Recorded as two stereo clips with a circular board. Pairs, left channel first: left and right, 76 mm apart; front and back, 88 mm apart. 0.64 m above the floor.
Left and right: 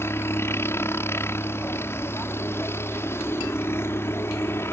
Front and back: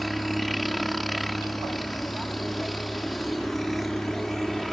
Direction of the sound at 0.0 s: 90° left.